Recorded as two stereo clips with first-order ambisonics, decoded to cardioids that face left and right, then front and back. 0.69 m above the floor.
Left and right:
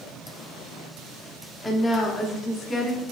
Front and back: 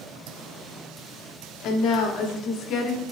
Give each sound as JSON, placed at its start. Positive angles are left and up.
{"t": 1.6, "sound": "a woman speaking", "azimuth_deg": 10, "distance_m": 1.4}